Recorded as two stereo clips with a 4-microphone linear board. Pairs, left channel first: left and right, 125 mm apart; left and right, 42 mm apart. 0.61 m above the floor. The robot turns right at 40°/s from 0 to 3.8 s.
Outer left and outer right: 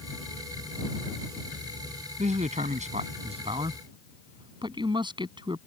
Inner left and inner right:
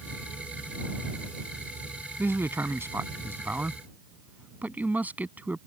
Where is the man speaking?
105° right; by 5.6 s 40° right.